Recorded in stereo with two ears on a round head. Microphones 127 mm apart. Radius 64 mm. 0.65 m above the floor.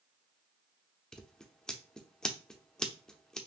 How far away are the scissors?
About 0.5 m.